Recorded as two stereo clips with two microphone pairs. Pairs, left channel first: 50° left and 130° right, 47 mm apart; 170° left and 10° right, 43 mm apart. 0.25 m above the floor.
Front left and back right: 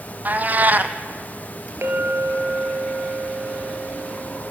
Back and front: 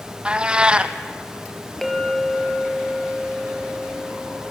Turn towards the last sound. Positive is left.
turn(degrees=-110)